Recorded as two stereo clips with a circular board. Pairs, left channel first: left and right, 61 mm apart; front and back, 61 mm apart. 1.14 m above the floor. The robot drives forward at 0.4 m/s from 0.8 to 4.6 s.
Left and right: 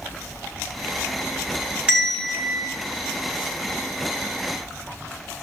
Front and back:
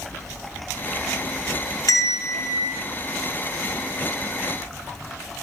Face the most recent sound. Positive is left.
turn(degrees=-20)